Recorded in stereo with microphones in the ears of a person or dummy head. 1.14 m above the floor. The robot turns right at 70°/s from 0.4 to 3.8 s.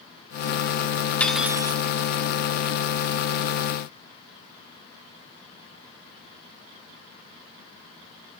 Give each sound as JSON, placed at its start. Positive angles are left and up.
{"t": 1.2, "sound": "cutlery clinking", "azimuth_deg": 170, "distance_m": 0.6}